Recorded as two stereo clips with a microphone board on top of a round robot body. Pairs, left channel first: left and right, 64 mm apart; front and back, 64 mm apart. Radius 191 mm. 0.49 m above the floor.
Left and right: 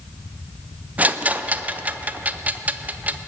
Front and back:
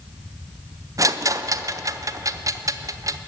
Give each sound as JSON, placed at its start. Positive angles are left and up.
{"t": 1.0, "sound": "a rattle", "azimuth_deg": -155, "distance_m": 0.5}